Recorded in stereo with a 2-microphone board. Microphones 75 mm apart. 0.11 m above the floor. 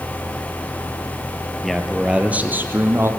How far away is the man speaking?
About 2.0 m.